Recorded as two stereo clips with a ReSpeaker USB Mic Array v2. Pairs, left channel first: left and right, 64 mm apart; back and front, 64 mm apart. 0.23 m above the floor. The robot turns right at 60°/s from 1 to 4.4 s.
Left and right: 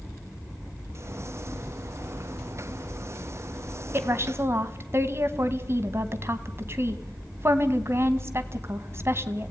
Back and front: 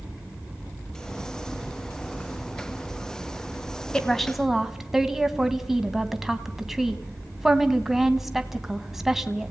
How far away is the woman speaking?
About 2 m.